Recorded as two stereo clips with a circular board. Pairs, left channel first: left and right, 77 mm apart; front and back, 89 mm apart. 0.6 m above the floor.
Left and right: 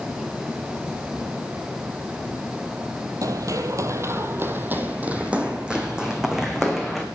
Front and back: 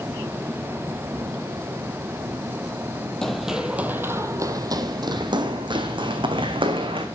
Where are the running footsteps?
85° right, 0.8 m; by 7.0 s 175° right, 2.0 m.